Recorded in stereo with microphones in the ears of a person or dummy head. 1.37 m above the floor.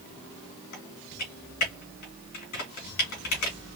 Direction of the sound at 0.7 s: 50° left (ahead or behind).